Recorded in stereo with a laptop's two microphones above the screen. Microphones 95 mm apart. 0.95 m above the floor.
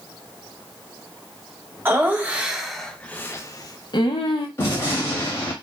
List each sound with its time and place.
1.9 s laughter: 25° right (ahead or behind), 1.0 m; by 4.5 s 65° left (ahead or behind), 0.9 m
4.6 s a gunshot: 25° left (ahead or behind), 1.0 m